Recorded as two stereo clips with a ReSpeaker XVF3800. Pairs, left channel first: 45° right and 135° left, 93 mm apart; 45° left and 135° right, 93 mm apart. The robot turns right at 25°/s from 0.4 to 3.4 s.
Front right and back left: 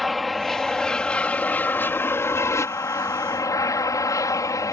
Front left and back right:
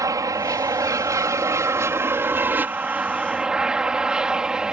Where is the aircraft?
135° right; by 4.7 s 60° right.